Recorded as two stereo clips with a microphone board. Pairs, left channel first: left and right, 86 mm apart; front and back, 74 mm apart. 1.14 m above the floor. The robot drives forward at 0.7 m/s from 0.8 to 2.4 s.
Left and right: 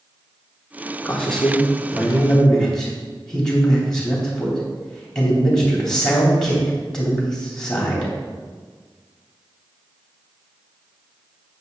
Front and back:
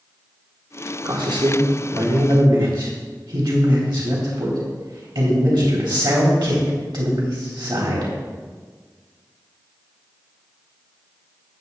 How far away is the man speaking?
About 2.5 m.